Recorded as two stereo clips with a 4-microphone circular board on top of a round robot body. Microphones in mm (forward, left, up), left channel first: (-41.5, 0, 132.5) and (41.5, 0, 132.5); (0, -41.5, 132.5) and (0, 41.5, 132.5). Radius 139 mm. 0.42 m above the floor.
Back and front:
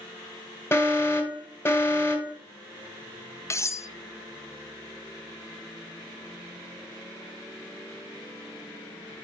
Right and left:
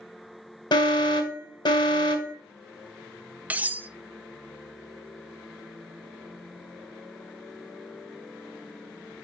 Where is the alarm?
120° right, 1.8 m.